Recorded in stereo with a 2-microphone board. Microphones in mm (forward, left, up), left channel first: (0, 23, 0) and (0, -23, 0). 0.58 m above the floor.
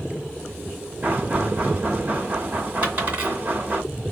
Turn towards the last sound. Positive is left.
turn(degrees=-30)  # may be behind; listen again after turning